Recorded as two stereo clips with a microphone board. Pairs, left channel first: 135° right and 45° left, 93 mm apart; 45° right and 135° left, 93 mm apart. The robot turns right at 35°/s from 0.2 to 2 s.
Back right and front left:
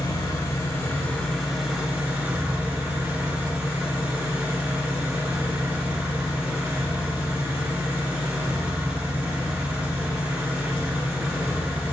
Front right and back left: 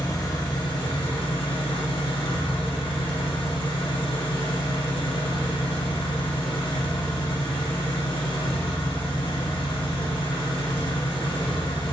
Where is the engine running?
90° right, 2.0 m; by 11.9 s 30° right, 2.0 m.